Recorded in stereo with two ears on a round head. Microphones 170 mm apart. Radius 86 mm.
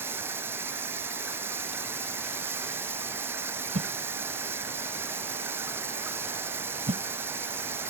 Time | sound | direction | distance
0.0 | running water | 10° right (ahead or behind) | ?
3.8 | a whoosh | 35° right (ahead or behind) | ?